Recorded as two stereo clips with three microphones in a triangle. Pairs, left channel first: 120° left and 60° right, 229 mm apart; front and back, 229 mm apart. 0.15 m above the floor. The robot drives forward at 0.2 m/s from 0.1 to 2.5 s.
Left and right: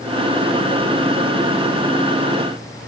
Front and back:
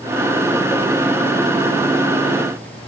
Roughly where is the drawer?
No drawer in this recording.